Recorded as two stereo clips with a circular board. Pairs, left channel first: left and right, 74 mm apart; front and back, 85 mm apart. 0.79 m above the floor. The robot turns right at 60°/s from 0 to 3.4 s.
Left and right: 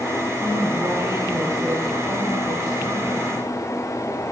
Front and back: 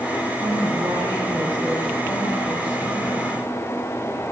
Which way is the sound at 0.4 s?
160° left.